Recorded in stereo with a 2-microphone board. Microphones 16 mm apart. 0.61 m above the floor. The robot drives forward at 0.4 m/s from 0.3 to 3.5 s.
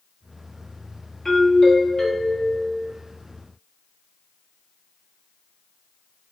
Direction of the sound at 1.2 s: 35° left (ahead or behind).